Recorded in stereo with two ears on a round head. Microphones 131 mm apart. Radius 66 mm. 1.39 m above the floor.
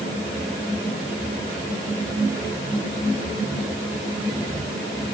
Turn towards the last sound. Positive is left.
No sound to turn to.